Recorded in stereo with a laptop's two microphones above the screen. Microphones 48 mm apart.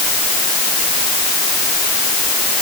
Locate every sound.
Only background noise.